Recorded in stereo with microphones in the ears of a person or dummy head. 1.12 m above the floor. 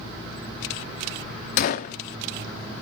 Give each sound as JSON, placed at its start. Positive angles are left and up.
{"t": 1.6, "sound": "a gunshot", "side_deg": 50, "distance_m": 0.6}